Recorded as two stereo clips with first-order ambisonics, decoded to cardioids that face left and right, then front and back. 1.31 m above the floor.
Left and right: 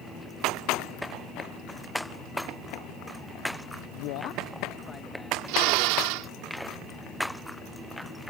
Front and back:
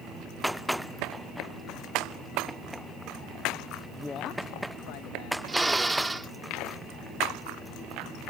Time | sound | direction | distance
3.9 | a man speaking | 110° left | ?
5.5 | a drill | 95° right | ?